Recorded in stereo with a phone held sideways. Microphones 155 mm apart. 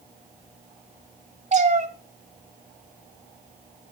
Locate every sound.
1.5 s a cat meowing: 50° right (ahead or behind), 1.5 m